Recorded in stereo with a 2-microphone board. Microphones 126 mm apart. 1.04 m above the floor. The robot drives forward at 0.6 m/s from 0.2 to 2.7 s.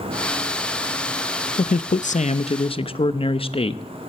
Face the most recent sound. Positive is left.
turn(degrees=45)  # may be behind; listen again after turning